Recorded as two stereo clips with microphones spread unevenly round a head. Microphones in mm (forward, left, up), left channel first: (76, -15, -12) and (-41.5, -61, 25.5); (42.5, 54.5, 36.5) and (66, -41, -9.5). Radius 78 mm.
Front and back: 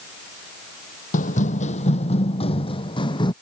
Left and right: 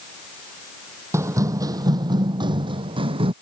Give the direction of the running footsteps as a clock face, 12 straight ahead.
12 o'clock.